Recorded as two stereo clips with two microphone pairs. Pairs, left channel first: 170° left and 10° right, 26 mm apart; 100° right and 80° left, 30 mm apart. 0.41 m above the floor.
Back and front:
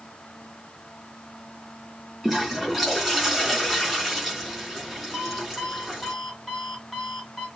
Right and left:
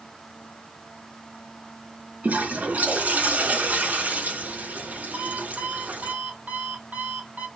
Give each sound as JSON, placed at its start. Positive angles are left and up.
{"t": 2.2, "sound": "a toilet flushing", "azimuth_deg": 70, "distance_m": 4.0}
{"t": 5.1, "sound": "an alarm clock", "azimuth_deg": 80, "distance_m": 2.0}